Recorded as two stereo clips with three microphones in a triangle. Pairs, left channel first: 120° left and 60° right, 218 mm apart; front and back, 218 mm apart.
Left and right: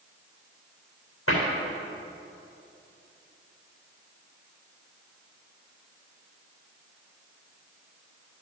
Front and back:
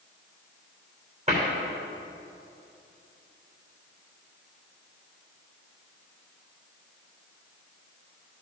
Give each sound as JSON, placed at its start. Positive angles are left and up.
{"t": 1.3, "sound": "a cupboard door", "azimuth_deg": 120, "distance_m": 3.0}